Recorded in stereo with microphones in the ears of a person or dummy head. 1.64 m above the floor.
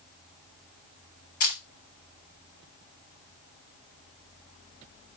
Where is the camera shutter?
50° left (ahead or behind), 1.9 m.